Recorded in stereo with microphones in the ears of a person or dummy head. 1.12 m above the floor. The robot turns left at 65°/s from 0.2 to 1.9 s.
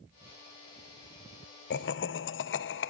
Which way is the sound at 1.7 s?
45° left (ahead or behind).